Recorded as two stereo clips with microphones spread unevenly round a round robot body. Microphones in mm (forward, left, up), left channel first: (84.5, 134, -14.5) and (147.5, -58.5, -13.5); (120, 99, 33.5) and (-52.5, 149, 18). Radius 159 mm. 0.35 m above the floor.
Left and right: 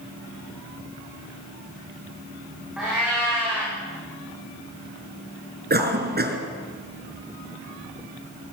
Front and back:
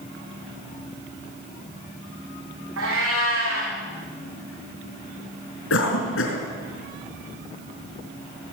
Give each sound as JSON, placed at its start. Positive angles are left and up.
{"t": 2.8, "sound": "a cat meowing", "azimuth_deg": -160, "distance_m": 6.5}
{"t": 5.7, "sound": "a cough", "azimuth_deg": -30, "distance_m": 4.5}